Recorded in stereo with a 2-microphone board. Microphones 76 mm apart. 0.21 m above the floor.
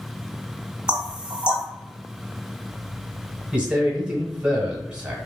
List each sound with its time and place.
0.9 s knocking: 15° right (ahead or behind), 0.7 m
3.5 s a man speaking: 15° right (ahead or behind), 1.2 m